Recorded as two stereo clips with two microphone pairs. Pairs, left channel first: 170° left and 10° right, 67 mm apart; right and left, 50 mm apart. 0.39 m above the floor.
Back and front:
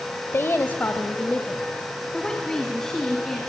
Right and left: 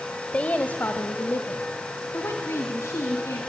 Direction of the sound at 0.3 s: 150° right.